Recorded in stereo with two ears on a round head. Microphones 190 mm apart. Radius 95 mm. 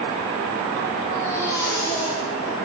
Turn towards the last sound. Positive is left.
turn(degrees=15)  # may be behind; listen again after turning